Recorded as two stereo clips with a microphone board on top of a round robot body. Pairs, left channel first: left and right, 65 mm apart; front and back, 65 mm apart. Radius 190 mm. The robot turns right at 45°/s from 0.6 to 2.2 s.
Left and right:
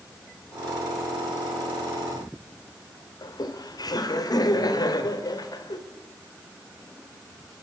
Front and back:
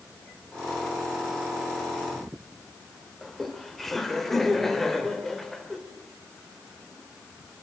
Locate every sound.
3.2 s laughter: 85° left, 2.5 m